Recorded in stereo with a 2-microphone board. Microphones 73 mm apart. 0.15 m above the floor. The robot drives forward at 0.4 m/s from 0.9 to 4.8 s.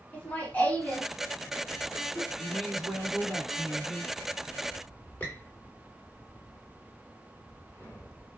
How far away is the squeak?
About 1.6 m.